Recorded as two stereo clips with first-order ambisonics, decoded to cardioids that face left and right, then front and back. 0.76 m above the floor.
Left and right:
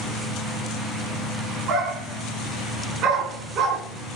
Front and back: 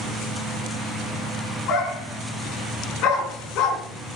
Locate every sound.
1.7 s a dog barking: 40° right, 4 m